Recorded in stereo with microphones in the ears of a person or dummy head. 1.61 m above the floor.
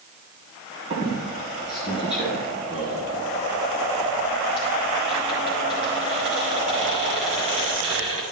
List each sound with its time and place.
0.9 s a squeak: 30° right (ahead or behind), 2.5 m